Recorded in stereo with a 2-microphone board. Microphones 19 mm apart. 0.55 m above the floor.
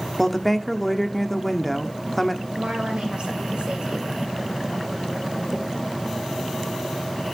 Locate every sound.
0.2 s a woman speaking: 10° left (ahead or behind), 1.0 m
2.5 s a woman speaking: 65° right (ahead or behind), 3 m